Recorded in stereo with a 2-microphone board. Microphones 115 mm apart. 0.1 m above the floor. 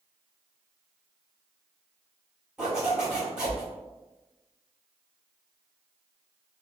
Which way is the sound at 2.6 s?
5° right (ahead or behind).